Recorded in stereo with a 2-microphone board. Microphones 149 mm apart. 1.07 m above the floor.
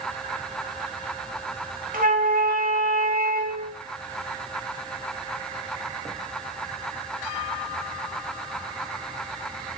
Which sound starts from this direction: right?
A flute, at 1.9 s.